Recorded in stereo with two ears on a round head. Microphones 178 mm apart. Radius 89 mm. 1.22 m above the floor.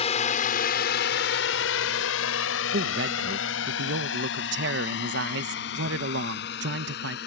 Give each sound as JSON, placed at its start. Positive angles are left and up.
{"t": 0.0, "sound": "a drone", "side_deg": 35}
{"t": 2.7, "sound": "a man speaking", "side_deg": -65}